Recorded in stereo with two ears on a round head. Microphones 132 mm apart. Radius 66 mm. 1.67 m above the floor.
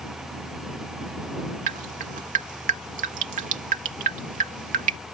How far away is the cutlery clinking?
I don't hear cutlery clinking.